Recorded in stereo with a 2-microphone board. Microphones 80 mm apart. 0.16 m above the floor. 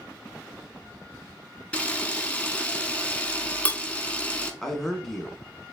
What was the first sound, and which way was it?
A camera shutter, 15° left (ahead or behind).